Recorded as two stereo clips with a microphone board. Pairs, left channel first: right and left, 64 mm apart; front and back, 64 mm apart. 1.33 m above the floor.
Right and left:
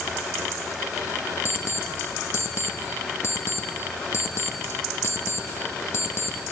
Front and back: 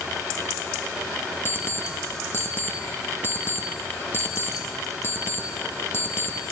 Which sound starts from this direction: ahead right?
An alarm clock, at 1.4 s.